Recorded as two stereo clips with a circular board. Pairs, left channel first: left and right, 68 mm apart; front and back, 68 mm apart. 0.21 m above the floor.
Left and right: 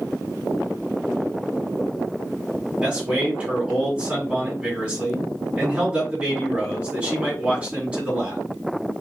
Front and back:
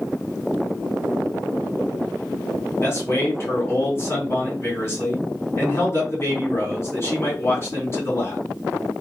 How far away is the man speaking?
About 2 m.